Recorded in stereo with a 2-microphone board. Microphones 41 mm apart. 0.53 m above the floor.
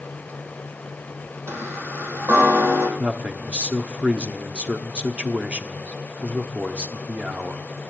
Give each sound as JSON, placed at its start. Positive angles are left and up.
{"t": 1.5, "sound": "a chime", "side_deg": -70, "distance_m": 4.0}
{"t": 3.0, "sound": "a man speaking", "side_deg": -30, "distance_m": 1.3}